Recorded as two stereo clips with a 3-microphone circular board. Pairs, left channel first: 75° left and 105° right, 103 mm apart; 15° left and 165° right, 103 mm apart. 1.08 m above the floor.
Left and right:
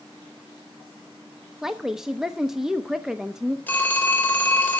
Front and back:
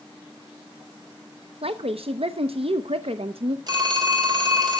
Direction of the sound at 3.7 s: 145° left.